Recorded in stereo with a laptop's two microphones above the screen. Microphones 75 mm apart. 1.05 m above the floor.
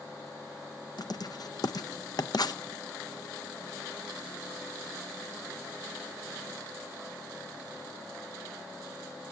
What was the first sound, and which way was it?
Writing, 60° left (ahead or behind).